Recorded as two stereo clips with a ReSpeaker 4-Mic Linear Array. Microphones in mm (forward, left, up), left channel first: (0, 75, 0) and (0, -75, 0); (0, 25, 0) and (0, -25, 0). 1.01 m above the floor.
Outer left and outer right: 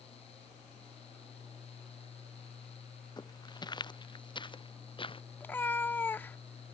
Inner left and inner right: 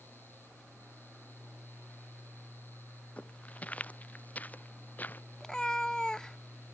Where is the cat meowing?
15° left (ahead or behind).